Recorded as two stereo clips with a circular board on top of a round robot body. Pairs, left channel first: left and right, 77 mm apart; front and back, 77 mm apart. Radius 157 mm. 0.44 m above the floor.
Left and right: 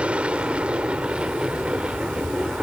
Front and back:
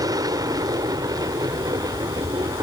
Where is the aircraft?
165° right.